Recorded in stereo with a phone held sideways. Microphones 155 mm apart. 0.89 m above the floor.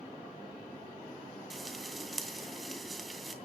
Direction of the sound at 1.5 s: Centre (ahead or behind).